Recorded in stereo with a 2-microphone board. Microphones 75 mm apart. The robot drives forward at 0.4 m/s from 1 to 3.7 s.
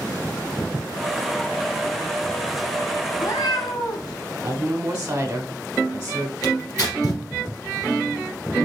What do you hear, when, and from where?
3.1 s a cat meowing: 65° left (ahead or behind), 1.0 m; by 4.1 s 75° left (ahead or behind), 1.0 m
4.4 s a woman speaking: 25° right (ahead or behind), 1.1 m
6.4 s tearing paper: 55° left (ahead or behind), 2.5 m